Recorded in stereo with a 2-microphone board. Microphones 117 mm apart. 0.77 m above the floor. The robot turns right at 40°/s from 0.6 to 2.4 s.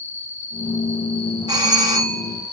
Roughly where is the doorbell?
Right.